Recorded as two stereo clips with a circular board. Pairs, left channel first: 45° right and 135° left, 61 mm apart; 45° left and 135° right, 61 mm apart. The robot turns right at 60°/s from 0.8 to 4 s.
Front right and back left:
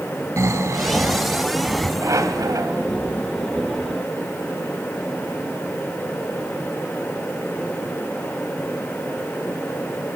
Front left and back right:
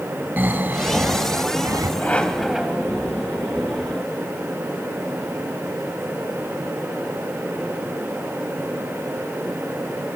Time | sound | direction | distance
0.4 | snoring | 170° left | 2.5 m
2.0 | a squeak | 105° left | 1.9 m